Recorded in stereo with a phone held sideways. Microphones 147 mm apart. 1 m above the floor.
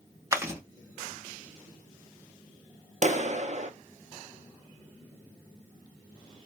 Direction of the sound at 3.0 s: 50° right (ahead or behind).